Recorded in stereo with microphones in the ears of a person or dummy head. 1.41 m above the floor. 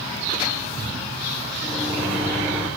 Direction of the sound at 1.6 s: 5° right (ahead or behind).